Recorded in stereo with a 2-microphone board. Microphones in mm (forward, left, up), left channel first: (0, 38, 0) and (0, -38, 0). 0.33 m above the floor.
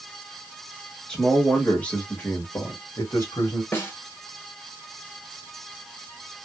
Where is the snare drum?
30° left (ahead or behind), 1.3 m.